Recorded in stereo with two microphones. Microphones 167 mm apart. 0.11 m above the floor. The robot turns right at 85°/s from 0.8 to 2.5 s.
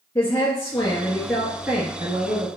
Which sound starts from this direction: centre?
A woman speaking, at 0.1 s.